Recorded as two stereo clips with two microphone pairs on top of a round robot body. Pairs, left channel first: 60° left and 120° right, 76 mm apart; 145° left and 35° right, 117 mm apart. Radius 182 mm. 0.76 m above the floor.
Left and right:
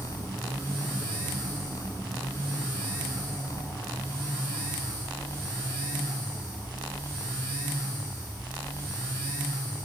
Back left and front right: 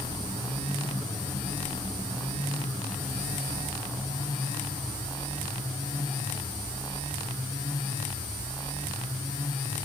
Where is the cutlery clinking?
I don't hear cutlery clinking.